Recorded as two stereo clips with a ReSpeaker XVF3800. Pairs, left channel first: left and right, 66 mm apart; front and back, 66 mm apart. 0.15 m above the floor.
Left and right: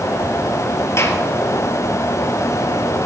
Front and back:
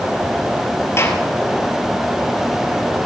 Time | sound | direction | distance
1.0 | a gunshot | 45° left | 1.6 m